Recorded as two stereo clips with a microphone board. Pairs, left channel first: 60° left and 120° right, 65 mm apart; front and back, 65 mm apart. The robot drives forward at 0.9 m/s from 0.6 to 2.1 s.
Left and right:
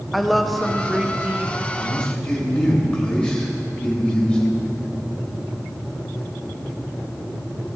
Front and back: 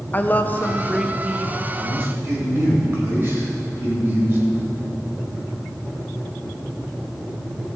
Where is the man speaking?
125° left, 3.5 m; by 4.4 s 130° left, 3.5 m.